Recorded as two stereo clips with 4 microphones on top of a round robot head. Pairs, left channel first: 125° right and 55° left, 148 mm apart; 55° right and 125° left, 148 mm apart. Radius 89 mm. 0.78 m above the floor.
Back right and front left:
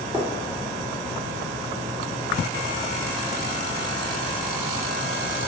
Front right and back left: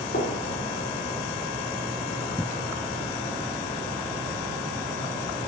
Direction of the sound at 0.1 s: 20° right.